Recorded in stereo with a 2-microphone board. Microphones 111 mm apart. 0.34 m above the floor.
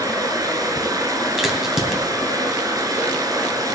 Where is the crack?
5° right (ahead or behind), 2.5 m.